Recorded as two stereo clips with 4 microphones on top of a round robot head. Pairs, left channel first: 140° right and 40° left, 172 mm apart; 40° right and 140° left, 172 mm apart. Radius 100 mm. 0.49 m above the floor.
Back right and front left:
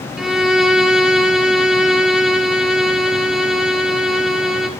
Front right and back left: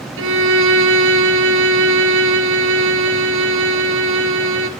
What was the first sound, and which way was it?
A violin, 125° left.